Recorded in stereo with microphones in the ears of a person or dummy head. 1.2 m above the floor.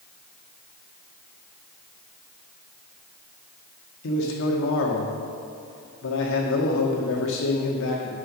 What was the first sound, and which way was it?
A man speaking, 65° left (ahead or behind).